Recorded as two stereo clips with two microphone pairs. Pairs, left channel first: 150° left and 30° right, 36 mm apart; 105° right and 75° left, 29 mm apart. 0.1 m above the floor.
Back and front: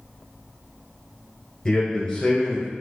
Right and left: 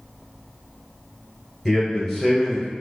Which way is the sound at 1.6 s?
170° right.